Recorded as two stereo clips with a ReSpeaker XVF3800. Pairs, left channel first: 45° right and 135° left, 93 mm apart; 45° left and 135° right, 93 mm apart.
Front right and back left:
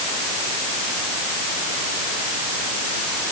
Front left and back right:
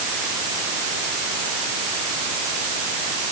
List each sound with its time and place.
Only background noise.